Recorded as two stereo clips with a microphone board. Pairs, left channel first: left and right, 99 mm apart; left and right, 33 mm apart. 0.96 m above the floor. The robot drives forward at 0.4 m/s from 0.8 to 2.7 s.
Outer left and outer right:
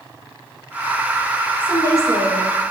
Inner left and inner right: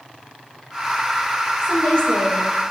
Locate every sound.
1.6 s a woman speaking: 35° left (ahead or behind), 5 m; by 2.7 s 30° left (ahead or behind), 5.5 m